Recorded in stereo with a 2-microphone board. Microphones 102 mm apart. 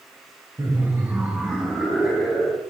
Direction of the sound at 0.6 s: 35° right (ahead or behind).